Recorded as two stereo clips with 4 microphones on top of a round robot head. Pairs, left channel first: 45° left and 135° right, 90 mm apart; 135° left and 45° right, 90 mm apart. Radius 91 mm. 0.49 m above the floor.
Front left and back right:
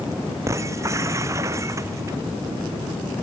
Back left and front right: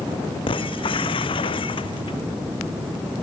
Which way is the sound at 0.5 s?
165° left.